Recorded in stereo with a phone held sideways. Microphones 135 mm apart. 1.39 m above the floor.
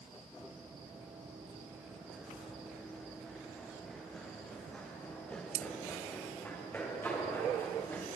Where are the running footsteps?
15° right (ahead or behind), 4 m; by 8.1 s 15° left (ahead or behind), 7 m.